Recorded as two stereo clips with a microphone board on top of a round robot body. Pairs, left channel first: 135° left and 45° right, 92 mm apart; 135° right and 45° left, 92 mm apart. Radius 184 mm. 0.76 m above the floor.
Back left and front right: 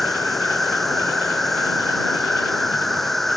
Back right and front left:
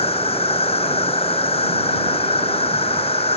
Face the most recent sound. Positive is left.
turn(degrees=-140)